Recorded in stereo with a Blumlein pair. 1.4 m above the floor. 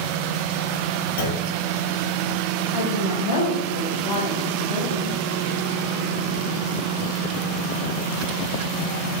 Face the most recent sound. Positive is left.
turn(degrees=70)